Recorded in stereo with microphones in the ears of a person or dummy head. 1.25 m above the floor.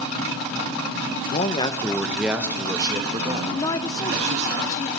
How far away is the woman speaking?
About 0.6 m.